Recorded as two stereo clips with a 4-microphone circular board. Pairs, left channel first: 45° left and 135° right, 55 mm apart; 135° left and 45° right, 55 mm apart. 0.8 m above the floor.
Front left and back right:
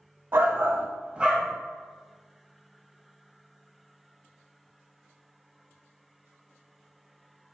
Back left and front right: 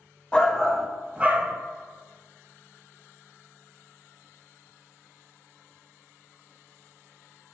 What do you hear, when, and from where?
0.3 s a shout: 160° right, 0.6 m; by 1.5 s 55° right, 0.5 m